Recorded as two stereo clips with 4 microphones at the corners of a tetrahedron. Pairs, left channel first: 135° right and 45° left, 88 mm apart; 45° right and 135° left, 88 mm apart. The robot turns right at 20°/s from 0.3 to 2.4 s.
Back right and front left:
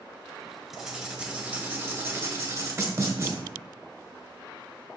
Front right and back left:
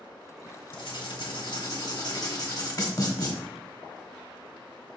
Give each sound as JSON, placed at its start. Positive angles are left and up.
{"t": 0.7, "sound": "writing", "azimuth_deg": -40, "distance_m": 1.6}